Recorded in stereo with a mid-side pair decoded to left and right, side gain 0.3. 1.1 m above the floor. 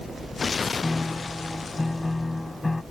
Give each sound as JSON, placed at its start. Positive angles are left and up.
{"t": 0.8, "sound": "a piano", "azimuth_deg": 25}